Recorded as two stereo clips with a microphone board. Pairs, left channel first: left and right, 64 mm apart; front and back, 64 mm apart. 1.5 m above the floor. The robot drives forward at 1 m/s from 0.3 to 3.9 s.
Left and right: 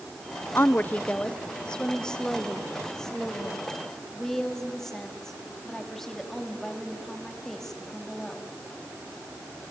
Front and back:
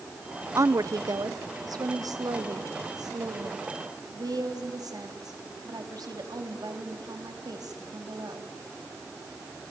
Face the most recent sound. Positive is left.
turn(degrees=175)